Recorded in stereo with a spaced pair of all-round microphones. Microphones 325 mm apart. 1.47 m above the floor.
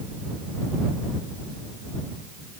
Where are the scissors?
I don't hear scissors.